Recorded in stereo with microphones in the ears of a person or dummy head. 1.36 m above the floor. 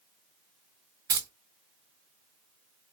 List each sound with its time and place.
1.1 s keys jangling: 25° right (ahead or behind), 0.5 m